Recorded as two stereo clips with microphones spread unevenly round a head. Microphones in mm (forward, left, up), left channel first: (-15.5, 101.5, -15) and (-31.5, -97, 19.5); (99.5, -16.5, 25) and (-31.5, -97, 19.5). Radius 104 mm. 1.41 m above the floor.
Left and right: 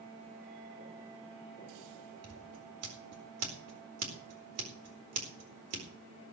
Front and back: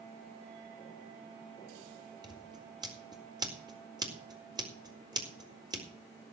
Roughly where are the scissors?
Right.